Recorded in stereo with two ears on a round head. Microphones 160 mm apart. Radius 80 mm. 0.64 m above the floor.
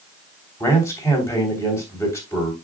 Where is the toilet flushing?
I don't hear a toilet flushing.